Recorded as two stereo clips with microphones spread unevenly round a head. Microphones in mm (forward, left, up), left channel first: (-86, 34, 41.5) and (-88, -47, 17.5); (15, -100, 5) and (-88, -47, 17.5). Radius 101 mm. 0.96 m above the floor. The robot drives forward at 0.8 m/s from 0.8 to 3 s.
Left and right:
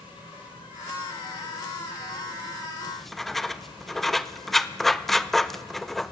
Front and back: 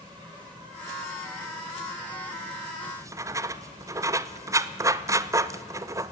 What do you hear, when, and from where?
0.0 s an insect: 75° left, 9 m; by 6.1 s 90° left, 8.5 m
2.9 s writing: 150° right, 0.8 m; by 6.1 s 155° right, 0.8 m